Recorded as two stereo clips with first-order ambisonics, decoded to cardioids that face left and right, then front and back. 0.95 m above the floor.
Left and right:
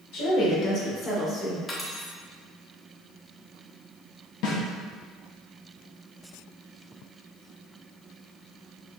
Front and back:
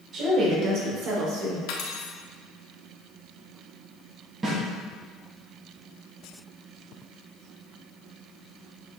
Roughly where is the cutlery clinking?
Ahead.